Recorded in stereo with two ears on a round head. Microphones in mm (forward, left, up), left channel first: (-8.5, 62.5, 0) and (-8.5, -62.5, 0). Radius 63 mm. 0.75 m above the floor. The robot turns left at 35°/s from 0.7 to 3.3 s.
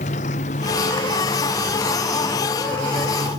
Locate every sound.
0.0 s a motorcycle: 50° left; by 3.4 s 40° right